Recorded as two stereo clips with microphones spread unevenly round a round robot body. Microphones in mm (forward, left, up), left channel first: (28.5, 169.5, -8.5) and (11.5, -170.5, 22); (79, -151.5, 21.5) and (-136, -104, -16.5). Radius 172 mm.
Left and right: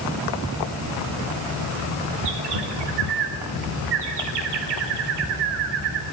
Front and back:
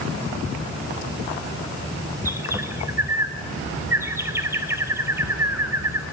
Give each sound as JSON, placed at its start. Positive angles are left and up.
{"t": 2.2, "sound": "a bird", "azimuth_deg": -115, "distance_m": 4.0}